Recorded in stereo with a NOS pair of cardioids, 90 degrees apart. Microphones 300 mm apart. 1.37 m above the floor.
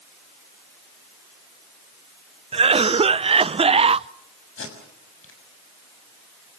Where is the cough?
20° right, 0.6 m.